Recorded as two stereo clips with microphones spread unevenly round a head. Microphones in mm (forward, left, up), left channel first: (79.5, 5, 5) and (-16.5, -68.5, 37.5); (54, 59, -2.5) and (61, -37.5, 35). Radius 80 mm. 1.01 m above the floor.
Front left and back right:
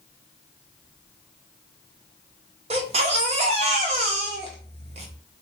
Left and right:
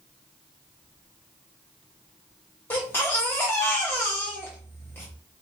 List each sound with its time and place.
2.7 s a baby crying: 160° left, 0.9 m